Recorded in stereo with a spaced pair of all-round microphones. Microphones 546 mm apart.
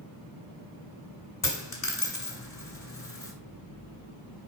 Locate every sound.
1.4 s a dropped coin: 40° left (ahead or behind), 1.8 m